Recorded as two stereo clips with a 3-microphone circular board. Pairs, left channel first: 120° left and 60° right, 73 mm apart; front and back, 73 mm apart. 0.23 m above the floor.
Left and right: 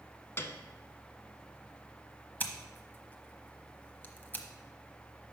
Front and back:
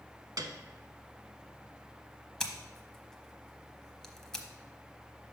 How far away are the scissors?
About 0.8 m.